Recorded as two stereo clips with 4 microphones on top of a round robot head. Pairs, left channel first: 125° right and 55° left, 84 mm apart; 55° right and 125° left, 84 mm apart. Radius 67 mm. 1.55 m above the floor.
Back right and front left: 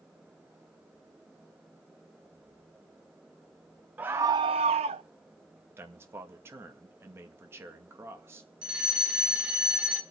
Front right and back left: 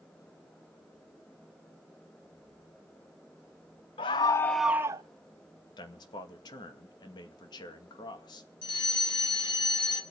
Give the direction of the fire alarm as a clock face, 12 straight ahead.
1 o'clock.